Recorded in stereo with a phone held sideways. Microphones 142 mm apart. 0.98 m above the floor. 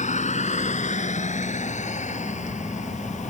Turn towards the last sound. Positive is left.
turn(degrees=60)  # may be behind; listen again after turning